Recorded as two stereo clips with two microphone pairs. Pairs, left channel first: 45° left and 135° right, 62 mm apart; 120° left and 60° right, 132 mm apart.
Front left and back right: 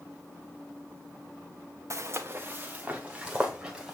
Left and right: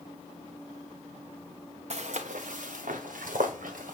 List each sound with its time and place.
1.9 s footsteps: 95° right, 1.0 m; by 3.9 s 50° right, 2.5 m